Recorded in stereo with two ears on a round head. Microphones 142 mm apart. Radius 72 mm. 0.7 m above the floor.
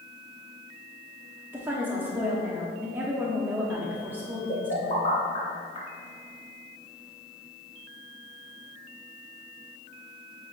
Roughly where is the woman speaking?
Centre.